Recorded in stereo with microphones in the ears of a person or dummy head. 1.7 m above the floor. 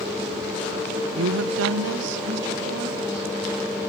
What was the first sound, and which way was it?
A woman speaking, 60° right (ahead or behind).